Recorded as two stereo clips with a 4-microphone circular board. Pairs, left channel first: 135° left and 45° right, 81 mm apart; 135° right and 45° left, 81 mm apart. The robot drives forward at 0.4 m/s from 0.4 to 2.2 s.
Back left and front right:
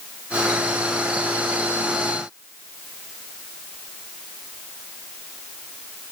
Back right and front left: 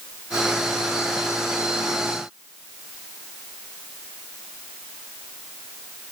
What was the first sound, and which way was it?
Only background noise.